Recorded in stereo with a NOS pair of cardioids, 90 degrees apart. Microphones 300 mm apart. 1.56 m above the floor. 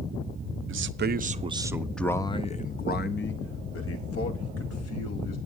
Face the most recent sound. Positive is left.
turn(degrees=60)